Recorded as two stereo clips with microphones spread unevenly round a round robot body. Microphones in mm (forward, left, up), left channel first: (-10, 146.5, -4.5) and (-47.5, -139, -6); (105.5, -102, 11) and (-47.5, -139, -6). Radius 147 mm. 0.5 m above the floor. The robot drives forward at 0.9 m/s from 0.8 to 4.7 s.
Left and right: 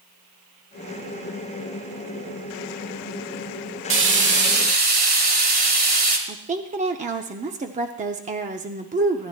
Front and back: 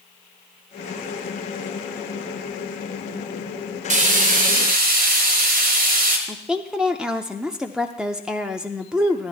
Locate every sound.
3.9 s frying: 140° right, 1.3 m; by 6.2 s 155° right, 1.9 m
6.3 s a woman speaking: 100° right, 0.7 m